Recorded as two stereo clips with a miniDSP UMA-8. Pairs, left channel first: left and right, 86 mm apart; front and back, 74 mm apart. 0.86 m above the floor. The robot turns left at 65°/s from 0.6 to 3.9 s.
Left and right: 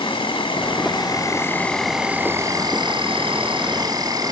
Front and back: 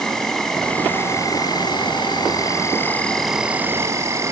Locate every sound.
0.0 s an insect: 85° left, 2.5 m; by 4.3 s 130° right, 2.5 m